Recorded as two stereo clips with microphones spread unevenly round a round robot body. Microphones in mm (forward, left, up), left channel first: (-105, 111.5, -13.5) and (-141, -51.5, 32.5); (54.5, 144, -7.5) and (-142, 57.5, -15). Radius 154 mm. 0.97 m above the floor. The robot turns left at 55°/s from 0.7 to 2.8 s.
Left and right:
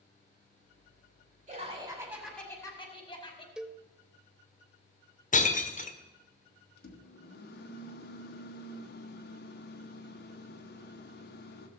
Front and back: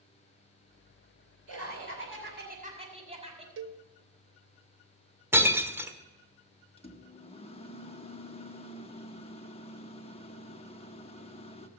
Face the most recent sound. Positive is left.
turn(degrees=90)